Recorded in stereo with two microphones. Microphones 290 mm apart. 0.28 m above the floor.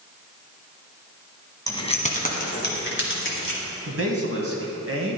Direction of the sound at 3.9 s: 45° right (ahead or behind).